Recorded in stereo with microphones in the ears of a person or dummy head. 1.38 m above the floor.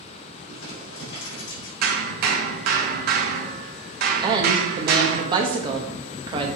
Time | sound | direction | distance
0.5 | crumpling | 75° left (ahead or behind) | 3.5 m
1.8 | hammering | 50° right (ahead or behind) | 1.2 m
4.2 | a woman speaking | 25° right (ahead or behind) | 1.3 m